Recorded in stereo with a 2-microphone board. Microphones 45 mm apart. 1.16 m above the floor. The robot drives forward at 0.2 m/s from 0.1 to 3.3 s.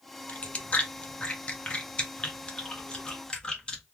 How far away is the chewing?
About 0.6 m.